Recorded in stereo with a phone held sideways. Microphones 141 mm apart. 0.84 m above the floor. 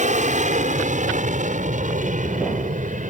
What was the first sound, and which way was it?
An aircraft, 60° right (ahead or behind).